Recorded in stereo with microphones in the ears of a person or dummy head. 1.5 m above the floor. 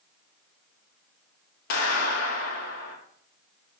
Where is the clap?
60° left (ahead or behind), 4 m.